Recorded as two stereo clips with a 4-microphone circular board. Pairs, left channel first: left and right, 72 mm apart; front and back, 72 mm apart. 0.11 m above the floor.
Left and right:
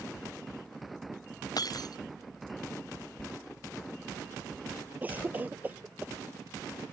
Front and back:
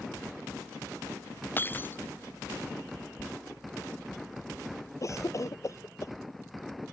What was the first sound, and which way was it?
Breaking glass, 60° left.